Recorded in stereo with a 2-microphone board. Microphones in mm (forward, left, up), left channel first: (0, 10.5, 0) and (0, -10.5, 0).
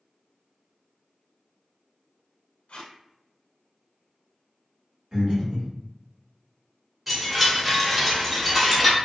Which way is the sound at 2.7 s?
70° left (ahead or behind).